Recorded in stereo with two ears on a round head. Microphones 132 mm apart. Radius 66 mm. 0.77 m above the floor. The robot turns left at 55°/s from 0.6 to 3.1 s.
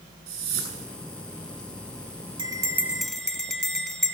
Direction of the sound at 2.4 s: 145° right.